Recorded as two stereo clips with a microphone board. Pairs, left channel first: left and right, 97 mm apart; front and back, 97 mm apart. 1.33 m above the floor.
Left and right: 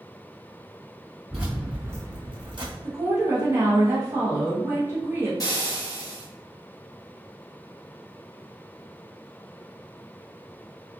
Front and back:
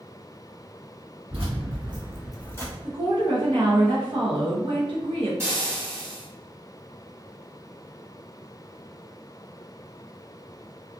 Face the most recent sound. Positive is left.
turn(degrees=125)